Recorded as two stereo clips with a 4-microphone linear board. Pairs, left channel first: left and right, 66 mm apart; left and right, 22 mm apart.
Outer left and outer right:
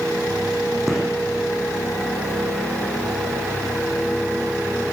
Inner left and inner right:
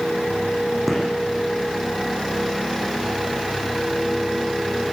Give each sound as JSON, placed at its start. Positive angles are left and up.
{"t": 0.9, "sound": "a gunshot", "side_deg": -5, "distance_m": 9.5}